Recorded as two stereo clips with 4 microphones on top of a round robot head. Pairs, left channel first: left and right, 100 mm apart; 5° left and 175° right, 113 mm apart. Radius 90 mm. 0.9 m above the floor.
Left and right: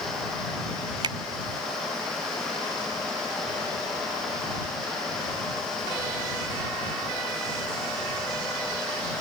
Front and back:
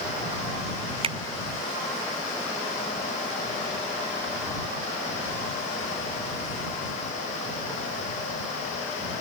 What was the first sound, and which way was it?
A finger snap, 135° right.